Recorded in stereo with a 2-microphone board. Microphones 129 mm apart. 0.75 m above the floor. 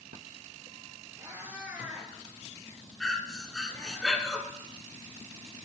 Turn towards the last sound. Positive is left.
turn(degrees=0)  # may be behind; listen again after turning